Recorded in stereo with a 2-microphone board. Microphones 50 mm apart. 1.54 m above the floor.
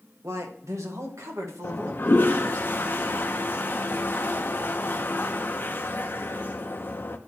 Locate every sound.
0.2 s a man speaking: 70° right (ahead or behind), 1.4 m
1.6 s a toilet flushing: 40° left (ahead or behind), 0.7 m